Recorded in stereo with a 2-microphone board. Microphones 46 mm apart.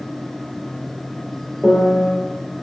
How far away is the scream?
No scream in this recording.